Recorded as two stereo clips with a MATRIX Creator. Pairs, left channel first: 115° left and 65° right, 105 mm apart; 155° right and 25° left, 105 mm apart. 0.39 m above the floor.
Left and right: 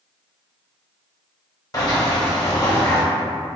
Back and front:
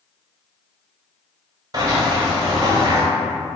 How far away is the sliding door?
About 0.8 m.